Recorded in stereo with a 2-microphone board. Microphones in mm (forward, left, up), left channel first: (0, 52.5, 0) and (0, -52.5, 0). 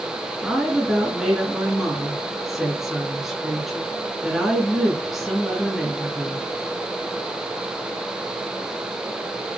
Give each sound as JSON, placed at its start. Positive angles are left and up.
{"t": 0.4, "sound": "a woman speaking", "side_deg": 0, "distance_m": 1.7}